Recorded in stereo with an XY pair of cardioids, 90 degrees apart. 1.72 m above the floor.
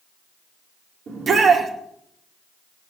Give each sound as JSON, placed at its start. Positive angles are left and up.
{"t": 1.1, "sound": "a shout", "azimuth_deg": -60, "distance_m": 4.5}